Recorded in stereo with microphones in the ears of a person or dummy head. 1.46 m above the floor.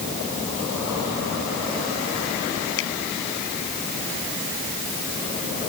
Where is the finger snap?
70° left (ahead or behind).